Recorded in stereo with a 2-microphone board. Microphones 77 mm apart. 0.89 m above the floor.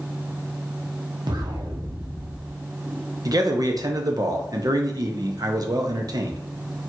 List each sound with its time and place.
1.3 s an explosion: 70° right (ahead or behind), 0.7 m
3.2 s a man speaking: 55° right (ahead or behind), 0.6 m